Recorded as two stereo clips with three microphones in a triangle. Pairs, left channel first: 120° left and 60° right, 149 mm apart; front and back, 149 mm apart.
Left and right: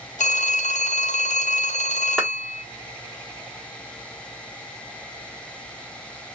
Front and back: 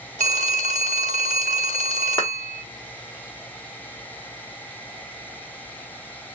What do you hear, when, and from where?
0.2 s a phone ringing: 150° left, 0.6 m
2.2 s a clap: 25° left, 1.0 m